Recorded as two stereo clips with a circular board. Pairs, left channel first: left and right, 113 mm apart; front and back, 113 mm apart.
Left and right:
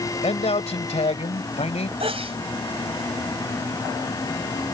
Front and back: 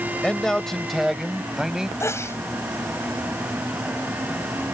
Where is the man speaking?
80° left; by 1.9 s 95° left.